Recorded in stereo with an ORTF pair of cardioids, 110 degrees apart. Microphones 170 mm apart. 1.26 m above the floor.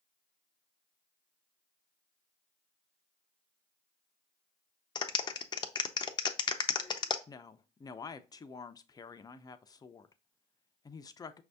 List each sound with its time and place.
5.0 s a clap: 25° left, 0.6 m
7.3 s a woman speaking: 20° left, 0.6 m